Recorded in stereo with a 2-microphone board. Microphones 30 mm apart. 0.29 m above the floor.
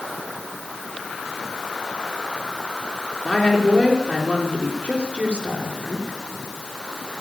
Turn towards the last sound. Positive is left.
turn(degrees=45)  # may be behind; listen again after turning